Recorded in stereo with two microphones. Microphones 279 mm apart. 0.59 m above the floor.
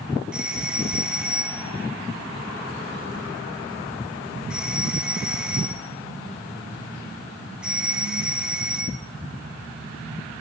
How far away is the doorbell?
About 1.9 m.